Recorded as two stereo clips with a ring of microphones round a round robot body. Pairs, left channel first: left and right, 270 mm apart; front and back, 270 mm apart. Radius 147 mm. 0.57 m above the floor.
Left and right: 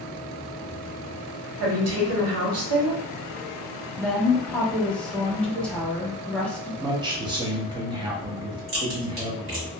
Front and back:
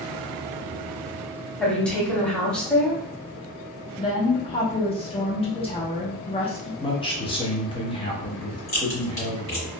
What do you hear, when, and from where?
1.6 s a woman speaking: 85° right, 1.2 m
4.0 s a woman speaking: 10° left, 0.7 m
6.8 s a man speaking: 40° right, 0.8 m
8.7 s a crack: 65° right, 1.9 m